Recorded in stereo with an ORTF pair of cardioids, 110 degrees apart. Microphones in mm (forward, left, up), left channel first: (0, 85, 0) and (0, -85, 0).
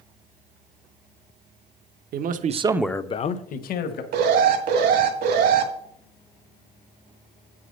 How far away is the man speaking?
About 1.1 m.